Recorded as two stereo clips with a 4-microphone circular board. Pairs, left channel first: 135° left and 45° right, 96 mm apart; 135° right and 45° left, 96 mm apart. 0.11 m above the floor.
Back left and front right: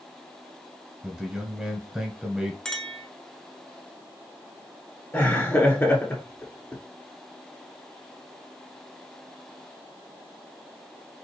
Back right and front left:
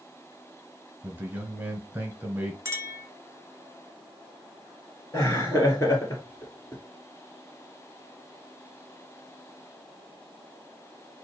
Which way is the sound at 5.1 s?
175° right.